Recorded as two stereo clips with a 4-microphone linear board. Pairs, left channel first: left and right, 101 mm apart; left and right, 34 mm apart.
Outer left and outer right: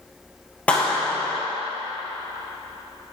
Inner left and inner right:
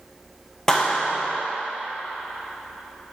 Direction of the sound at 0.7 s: 15° left (ahead or behind).